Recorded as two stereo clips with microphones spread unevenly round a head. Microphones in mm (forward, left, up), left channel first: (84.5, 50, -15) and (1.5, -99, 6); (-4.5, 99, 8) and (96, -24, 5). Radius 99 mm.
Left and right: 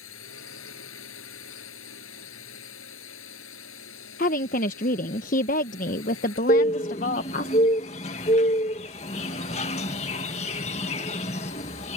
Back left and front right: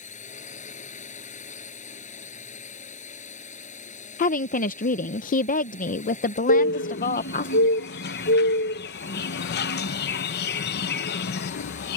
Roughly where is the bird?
Behind left.